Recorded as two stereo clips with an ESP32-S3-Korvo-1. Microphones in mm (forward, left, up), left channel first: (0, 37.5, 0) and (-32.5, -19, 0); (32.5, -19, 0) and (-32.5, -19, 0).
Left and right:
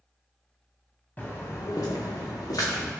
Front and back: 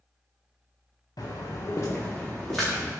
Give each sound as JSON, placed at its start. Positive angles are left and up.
{"t": 1.2, "sound": "footsteps", "azimuth_deg": -5, "distance_m": 1.1}